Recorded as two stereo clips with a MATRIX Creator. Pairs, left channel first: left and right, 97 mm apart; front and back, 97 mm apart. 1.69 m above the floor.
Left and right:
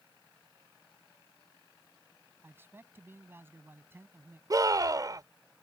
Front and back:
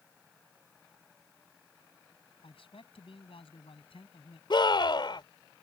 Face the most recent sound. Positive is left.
turn(degrees=-40)